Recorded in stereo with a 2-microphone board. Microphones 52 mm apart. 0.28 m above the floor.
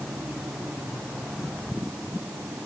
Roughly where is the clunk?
No clunk in this recording.